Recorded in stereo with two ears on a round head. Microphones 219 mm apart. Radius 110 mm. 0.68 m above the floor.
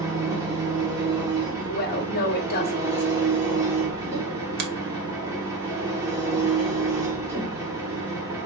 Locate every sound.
0.0 s an engine running: 15° right (ahead or behind), 1.2 m
1.7 s a woman speaking: 40° left (ahead or behind), 1.2 m
4.6 s a finger snap: 40° right (ahead or behind), 0.9 m